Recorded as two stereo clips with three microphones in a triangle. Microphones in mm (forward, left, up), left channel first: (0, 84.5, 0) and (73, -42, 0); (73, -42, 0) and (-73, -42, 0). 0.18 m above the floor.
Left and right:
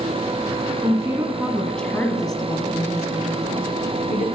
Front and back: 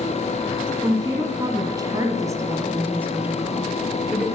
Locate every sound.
0.8 s a woman speaking: 120° right, 1.7 m; by 4.3 s 95° left, 2.5 m